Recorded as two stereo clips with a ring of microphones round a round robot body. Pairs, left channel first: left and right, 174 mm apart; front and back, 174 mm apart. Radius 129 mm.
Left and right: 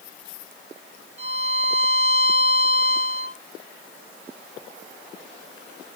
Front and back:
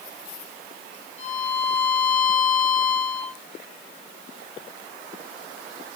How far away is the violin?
About 3.5 m.